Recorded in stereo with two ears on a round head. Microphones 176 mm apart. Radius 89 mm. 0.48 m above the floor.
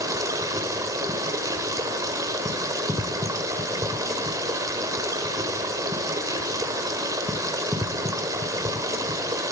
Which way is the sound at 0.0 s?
15° right (ahead or behind).